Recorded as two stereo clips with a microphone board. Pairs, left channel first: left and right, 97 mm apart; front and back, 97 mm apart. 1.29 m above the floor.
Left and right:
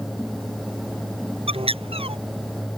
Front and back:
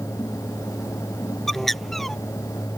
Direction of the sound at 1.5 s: 90° right.